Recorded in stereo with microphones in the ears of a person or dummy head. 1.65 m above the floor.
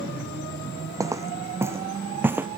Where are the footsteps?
15° right (ahead or behind); by 2.5 s 5° right (ahead or behind).